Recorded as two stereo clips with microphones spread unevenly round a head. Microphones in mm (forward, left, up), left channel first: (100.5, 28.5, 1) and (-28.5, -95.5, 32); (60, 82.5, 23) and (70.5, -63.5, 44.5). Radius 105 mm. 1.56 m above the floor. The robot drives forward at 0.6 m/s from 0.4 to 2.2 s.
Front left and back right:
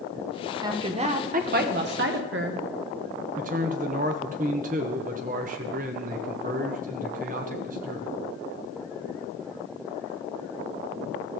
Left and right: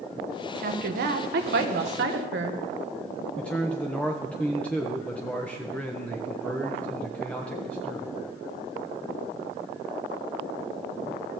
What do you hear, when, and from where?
0.6 s a woman speaking: 70° right, 1.0 m; by 2.6 s 125° right, 1.1 m
3.4 s a man speaking: straight behind, 0.8 m